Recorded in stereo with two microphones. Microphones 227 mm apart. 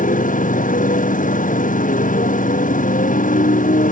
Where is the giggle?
I don't hear a giggle.